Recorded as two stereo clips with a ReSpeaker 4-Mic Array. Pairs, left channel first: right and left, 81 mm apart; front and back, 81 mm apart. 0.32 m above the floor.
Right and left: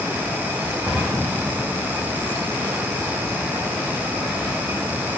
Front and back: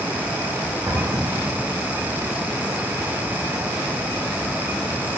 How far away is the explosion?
About 3.5 m.